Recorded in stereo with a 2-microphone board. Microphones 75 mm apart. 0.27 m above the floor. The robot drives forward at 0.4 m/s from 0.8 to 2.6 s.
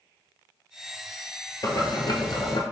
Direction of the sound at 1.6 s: 50° left (ahead or behind).